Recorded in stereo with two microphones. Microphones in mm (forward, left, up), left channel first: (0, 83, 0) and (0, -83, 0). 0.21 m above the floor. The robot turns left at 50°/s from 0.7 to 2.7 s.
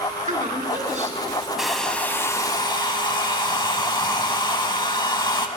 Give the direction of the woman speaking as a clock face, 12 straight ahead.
3 o'clock.